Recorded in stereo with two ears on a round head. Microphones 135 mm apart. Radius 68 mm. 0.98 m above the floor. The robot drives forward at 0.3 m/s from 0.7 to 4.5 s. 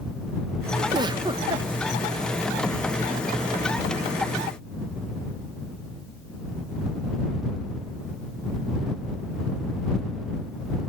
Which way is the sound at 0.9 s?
30° right (ahead or behind).